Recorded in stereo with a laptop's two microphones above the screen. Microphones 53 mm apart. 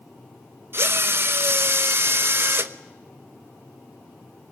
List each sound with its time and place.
0.7 s a drill: 45° right (ahead or behind), 1.1 m